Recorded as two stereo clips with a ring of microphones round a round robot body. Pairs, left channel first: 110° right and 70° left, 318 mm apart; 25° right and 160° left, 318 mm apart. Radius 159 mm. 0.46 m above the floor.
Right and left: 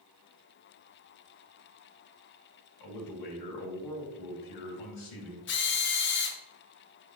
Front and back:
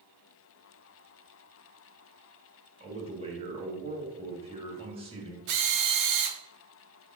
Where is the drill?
170° right, 1.3 m.